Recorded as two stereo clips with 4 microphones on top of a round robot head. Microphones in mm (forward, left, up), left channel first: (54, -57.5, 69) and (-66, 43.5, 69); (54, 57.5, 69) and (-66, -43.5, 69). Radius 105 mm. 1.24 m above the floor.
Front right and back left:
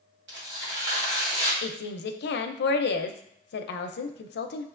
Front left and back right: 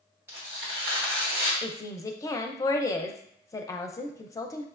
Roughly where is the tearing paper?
Behind left.